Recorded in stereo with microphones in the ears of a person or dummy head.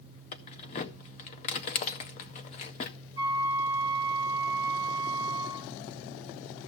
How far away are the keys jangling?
About 0.7 m.